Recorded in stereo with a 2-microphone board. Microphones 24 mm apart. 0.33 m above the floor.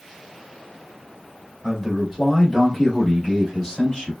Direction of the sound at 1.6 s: 10° right (ahead or behind).